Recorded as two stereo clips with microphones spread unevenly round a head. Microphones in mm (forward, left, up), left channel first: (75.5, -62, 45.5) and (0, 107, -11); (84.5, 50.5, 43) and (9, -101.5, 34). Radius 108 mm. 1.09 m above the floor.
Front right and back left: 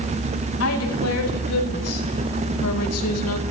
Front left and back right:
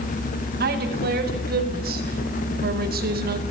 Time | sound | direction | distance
0.6 | a woman speaking | 85° right | 7.5 m